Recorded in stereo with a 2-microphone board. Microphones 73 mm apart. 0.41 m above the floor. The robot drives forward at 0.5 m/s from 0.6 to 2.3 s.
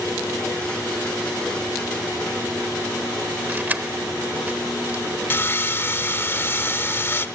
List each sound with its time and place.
3.5 s keys jangling: 25° right (ahead or behind), 0.8 m
5.3 s sawing: 30° left (ahead or behind), 0.5 m